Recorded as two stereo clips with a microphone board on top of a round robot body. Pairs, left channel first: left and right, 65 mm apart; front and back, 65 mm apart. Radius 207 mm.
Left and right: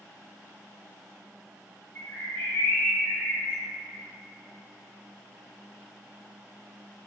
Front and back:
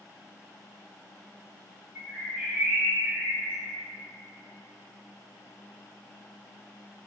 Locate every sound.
1.9 s a bird: 130° left, 1.3 m